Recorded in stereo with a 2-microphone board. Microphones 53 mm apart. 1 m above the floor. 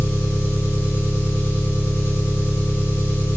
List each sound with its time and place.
0.0 s an engine running: 55° left (ahead or behind), 2.5 m